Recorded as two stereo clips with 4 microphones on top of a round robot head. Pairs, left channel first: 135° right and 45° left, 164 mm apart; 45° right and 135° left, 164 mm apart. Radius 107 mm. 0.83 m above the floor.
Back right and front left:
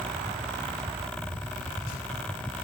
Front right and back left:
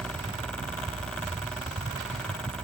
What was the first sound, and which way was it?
Only background noise.